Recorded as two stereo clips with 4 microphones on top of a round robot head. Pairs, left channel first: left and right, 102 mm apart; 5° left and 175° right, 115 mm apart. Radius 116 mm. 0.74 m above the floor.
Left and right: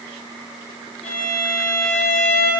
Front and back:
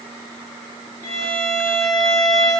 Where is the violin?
70° left, 3 m.